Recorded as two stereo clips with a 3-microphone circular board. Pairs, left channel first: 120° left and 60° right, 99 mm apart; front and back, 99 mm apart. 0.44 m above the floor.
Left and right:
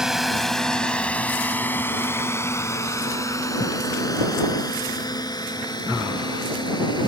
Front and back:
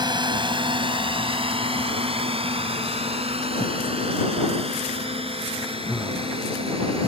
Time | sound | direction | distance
0.0 | a drone | 145° right | ?